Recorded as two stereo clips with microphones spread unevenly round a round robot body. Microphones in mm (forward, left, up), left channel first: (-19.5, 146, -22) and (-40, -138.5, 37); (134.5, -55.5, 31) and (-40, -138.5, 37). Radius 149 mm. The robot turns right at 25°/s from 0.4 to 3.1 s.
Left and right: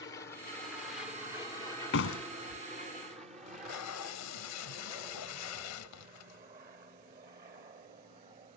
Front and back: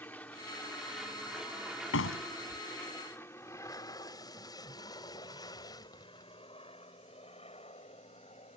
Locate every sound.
0.0 s an aircraft: 90° left; by 8.6 s 25° right
1.9 s a door slam: 35° left; by 2.6 s 50° left
3.5 s tape being pulled: 100° left